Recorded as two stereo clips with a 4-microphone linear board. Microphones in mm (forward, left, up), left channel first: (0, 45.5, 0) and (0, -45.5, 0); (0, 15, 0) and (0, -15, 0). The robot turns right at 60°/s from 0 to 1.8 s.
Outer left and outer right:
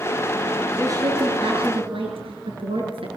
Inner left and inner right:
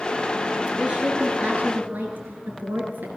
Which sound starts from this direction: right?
A woman speaking, at 0.8 s.